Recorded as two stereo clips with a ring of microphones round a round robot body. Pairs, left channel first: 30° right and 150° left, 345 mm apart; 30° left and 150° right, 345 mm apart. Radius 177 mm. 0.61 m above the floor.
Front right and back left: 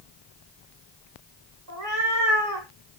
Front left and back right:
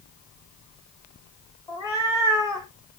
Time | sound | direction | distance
1.7 | a cat meowing | 110° left | 7 m